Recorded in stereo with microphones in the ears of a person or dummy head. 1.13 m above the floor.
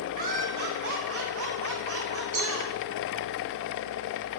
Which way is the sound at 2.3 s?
55° right (ahead or behind).